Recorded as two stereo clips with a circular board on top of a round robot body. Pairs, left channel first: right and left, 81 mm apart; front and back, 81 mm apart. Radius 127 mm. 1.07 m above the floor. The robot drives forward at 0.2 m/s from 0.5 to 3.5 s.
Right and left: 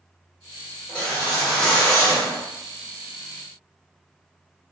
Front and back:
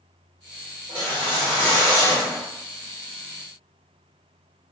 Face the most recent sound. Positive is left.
turn(degrees=-175)